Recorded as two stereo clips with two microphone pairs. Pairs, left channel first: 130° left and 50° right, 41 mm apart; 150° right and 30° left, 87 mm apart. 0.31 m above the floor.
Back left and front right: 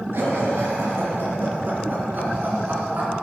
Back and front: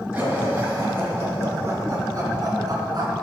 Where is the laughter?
40° right, 4.5 m; by 3.1 s 5° right, 3.5 m.